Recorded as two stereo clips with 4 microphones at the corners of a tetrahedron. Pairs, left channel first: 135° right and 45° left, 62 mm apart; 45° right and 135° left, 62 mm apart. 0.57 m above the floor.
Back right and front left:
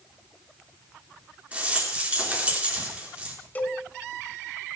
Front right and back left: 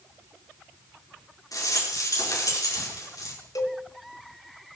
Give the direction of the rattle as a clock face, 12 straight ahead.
1 o'clock.